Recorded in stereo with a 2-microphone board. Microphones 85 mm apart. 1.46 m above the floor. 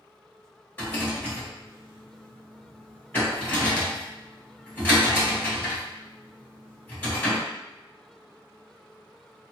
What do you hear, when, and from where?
0.8 s a rattle: 20° left (ahead or behind), 1.6 m